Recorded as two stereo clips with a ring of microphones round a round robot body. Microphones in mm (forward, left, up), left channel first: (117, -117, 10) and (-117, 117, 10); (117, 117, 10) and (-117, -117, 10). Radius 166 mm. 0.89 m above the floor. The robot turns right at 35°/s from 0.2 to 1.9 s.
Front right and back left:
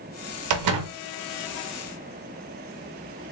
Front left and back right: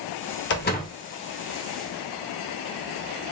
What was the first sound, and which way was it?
A door slam, 100° left.